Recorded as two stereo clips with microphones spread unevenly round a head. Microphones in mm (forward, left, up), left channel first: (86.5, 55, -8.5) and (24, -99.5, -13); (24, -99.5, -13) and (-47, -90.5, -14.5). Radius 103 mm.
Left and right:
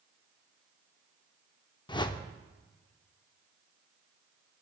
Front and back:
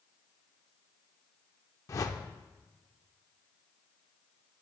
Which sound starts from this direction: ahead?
A whoosh, at 1.9 s.